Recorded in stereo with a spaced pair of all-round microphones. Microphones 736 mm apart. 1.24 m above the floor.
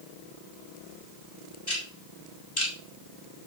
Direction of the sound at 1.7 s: 30° left (ahead or behind).